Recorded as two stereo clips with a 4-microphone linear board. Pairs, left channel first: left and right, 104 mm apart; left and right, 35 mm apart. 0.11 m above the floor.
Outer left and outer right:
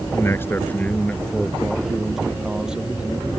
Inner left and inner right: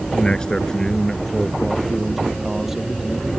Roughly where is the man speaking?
Left.